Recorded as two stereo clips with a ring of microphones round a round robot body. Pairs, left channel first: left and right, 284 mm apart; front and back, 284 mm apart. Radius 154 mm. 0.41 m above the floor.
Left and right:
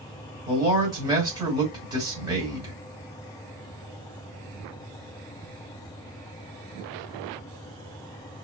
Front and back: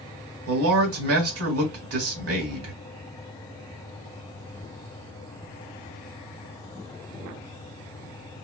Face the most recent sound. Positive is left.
turn(degrees=-165)